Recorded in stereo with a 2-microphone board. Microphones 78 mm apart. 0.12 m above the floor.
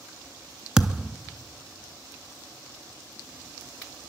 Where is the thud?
10° right (ahead or behind), 0.6 m.